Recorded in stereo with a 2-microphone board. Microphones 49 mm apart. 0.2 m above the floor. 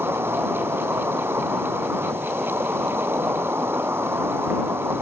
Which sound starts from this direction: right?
An insect, at 0.0 s.